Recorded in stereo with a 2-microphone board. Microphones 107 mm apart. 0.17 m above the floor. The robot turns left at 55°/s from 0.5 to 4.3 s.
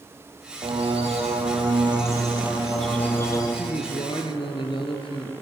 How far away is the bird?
About 4.5 m.